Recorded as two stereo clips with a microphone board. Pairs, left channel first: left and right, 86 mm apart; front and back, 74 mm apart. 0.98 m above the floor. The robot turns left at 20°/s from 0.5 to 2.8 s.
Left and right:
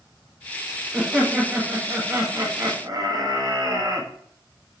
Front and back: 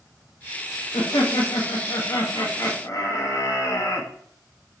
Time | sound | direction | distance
0.9 | laughter | 5° right | 0.7 m